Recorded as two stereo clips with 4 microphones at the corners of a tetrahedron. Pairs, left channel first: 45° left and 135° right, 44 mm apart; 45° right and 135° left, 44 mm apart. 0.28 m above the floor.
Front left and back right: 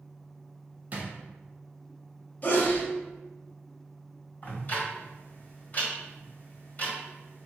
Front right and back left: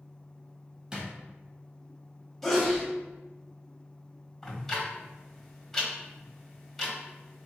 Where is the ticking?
40° left, 1.5 m.